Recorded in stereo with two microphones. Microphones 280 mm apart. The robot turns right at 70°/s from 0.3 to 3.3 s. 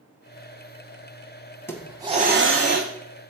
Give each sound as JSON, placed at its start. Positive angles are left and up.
{"t": 1.7, "sound": "a hiss", "azimuth_deg": 170, "distance_m": 0.9}